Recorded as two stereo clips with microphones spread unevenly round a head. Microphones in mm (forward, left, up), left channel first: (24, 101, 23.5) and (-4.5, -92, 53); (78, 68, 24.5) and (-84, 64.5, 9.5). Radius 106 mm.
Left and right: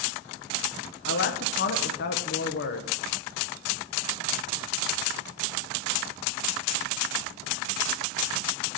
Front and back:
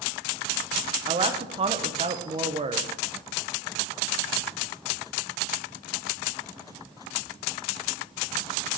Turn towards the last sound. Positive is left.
turn(degrees=125)